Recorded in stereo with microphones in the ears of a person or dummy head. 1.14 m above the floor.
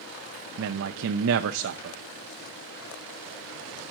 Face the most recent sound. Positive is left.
turn(degrees=-65)  # may be behind; listen again after turning